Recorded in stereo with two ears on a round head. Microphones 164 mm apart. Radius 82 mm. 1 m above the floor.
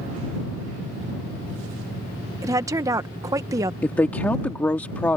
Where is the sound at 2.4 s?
20° right (ahead or behind).